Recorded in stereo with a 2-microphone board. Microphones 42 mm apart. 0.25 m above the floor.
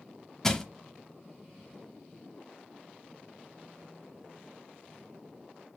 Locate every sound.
0.4 s crushing: 10° left (ahead or behind), 0.7 m